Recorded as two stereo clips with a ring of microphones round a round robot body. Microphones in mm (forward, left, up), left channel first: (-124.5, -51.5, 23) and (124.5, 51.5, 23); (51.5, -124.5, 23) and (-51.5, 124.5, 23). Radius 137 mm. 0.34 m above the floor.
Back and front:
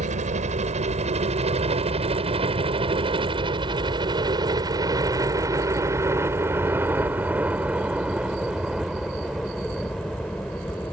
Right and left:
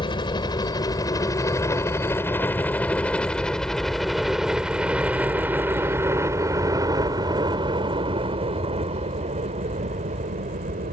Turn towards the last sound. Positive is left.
turn(degrees=120)